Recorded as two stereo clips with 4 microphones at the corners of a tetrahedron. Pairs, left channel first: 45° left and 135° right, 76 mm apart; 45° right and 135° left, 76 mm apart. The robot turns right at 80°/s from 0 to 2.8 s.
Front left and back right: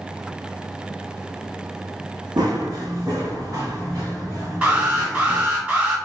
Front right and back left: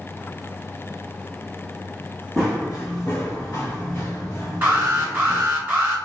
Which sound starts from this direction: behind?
An alarm, at 4.6 s.